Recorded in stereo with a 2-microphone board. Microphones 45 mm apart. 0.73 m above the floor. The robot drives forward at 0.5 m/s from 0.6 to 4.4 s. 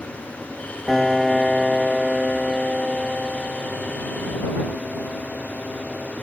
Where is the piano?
Centre (ahead or behind).